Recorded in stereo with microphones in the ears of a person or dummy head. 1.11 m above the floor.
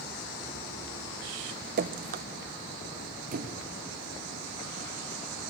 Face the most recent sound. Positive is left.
turn(degrees=-50)  # may be behind; listen again after turning